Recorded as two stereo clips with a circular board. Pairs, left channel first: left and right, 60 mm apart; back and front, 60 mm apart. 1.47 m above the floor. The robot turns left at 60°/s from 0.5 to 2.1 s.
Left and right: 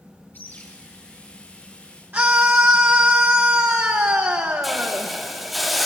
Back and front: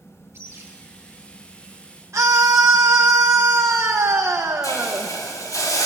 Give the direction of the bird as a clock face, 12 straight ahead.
11 o'clock.